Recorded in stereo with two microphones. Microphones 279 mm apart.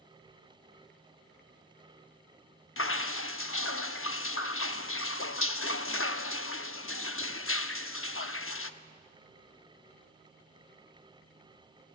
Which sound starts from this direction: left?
Dripping, at 2.8 s.